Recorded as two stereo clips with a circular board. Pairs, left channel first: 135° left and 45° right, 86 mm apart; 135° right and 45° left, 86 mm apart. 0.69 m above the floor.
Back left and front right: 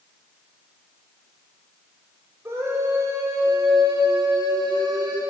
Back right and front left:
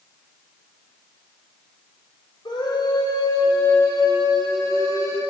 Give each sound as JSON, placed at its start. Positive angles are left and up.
{"t": 2.5, "sound": "a scream", "azimuth_deg": -105, "distance_m": 3.0}